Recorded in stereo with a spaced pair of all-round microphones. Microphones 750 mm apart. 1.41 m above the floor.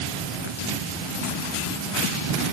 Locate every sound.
Only background noise.